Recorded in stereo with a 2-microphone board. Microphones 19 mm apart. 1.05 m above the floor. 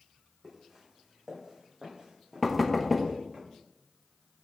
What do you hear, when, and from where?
0.4 s footsteps: 10° right (ahead or behind), 2.5 m; by 3.4 s 50° right (ahead or behind), 3 m
2.4 s knocking: 5° right (ahead or behind), 0.8 m